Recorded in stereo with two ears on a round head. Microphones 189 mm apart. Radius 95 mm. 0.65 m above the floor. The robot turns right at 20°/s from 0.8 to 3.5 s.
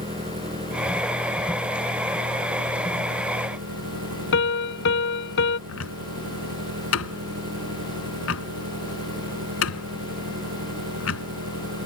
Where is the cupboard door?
70° left (ahead or behind).